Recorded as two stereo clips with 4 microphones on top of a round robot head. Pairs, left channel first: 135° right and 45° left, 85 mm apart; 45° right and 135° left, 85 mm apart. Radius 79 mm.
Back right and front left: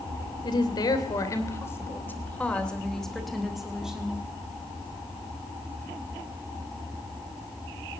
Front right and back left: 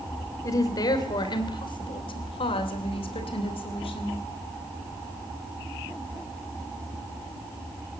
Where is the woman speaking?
95° right, 3 m; by 4.2 s 35° right, 4 m.